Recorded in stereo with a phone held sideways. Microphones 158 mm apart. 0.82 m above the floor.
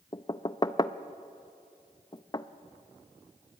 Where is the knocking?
25° left (ahead or behind), 0.5 m.